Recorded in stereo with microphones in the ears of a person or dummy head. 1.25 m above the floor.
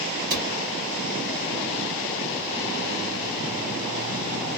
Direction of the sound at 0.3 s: 50° right (ahead or behind).